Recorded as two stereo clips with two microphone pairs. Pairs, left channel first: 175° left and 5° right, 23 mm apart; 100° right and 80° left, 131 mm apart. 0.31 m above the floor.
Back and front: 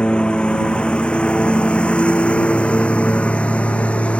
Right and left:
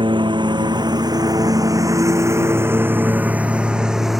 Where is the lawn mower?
130° left; by 4.2 s 165° left.